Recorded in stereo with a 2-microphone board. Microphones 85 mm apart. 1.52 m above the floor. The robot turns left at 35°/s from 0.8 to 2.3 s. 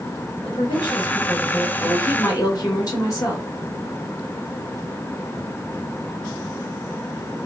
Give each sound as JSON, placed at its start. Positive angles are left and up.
{"t": 0.5, "sound": "a woman speaking", "azimuth_deg": 70, "distance_m": 1.3}
{"t": 1.8, "sound": "a woman speaking", "side_deg": 30, "distance_m": 1.3}